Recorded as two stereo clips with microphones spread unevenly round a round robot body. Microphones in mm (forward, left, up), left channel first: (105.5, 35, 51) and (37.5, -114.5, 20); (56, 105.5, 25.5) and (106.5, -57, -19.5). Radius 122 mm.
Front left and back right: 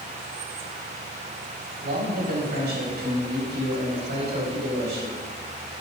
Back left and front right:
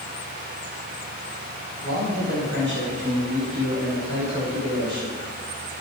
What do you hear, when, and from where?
1.8 s a man speaking: 95° right, 5 m; by 5.2 s 120° right, 5 m